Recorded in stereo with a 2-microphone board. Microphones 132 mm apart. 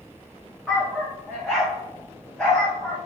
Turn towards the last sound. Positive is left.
turn(degrees=10)  # may be behind; listen again after turning